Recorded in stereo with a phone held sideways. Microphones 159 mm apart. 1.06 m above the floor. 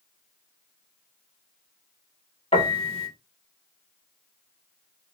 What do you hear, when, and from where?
2.5 s a piano: 35° left (ahead or behind), 2 m